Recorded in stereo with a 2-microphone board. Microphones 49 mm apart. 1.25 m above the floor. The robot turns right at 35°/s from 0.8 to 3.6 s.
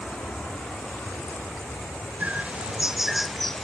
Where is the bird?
40° right; by 3.6 s 10° left.